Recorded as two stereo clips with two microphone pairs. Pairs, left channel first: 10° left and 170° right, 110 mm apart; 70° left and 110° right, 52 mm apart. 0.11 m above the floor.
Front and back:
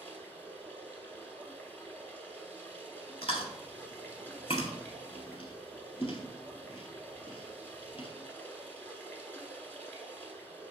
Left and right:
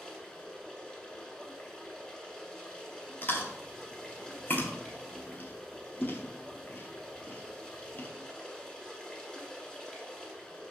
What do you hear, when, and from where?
0.0 s running water: 10° left, 0.8 m
3.2 s chewing: 20° left, 0.8 m